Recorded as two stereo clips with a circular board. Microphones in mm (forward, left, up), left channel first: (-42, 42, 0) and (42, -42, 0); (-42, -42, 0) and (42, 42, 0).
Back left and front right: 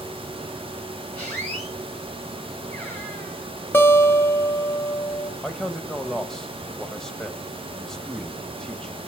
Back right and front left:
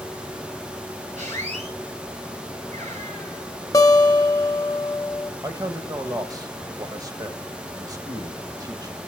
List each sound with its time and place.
1.2 s a squeak: 55° left, 5.5 m
3.7 s a guitar: 170° right, 1.5 m
5.4 s a man speaking: 55° left, 1.0 m